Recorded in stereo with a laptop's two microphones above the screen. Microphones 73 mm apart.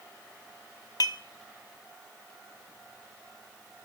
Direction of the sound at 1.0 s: 60° left (ahead or behind).